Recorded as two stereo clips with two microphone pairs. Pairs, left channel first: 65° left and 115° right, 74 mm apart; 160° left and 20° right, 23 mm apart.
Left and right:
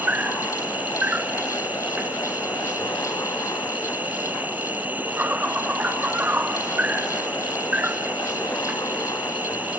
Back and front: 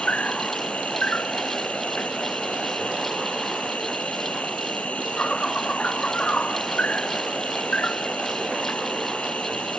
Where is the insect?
175° left.